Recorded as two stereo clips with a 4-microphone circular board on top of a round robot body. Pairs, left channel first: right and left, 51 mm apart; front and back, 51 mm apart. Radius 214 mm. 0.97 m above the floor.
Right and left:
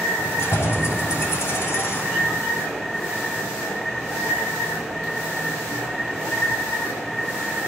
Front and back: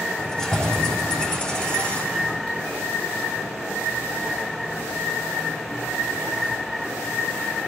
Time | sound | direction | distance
0.2 | keys jangling | 75° right | 5 m